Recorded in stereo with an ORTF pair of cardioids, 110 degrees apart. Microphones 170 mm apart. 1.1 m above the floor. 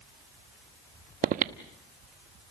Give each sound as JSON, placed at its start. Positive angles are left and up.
{"t": 1.2, "sound": "breathing", "azimuth_deg": -55, "distance_m": 1.1}